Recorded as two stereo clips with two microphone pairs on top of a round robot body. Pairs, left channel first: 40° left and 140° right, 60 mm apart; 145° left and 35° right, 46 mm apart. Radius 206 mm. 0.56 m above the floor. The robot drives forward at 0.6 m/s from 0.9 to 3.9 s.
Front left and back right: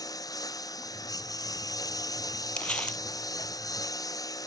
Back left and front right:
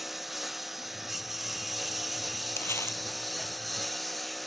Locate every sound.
0.0 s a lawn mower: 50° left; by 4.5 s 55° left
2.6 s crumpling: 110° left; by 3.0 s 115° left